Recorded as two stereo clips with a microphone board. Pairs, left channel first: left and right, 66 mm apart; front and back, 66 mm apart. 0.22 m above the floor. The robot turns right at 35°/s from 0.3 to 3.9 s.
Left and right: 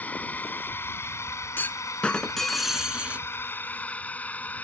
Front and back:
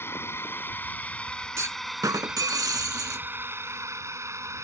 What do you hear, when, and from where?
0.0 s a drone: 35° left; by 4.6 s 150° left
1.6 s a clunk: 145° left; by 3.3 s 155° right